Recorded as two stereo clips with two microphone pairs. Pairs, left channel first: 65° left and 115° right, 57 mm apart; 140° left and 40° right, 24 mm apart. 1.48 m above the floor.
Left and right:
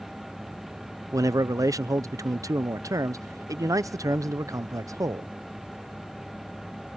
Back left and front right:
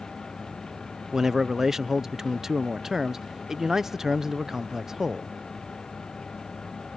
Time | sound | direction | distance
1.1 | a man speaking | 115° right | ?